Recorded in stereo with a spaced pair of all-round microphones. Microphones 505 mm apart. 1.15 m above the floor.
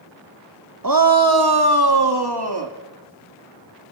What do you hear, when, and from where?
0.8 s a shout: 40° right (ahead or behind), 1.0 m; by 2.7 s 50° right (ahead or behind), 2 m